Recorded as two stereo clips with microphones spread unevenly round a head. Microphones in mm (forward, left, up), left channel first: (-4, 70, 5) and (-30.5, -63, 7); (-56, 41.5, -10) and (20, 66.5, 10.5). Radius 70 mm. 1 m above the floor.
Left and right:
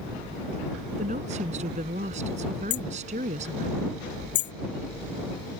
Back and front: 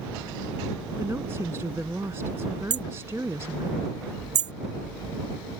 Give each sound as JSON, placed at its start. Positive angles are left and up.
{"t": 1.0, "sound": "a woman speaking", "azimuth_deg": -55}
{"t": 2.7, "sound": "hammering", "azimuth_deg": 40}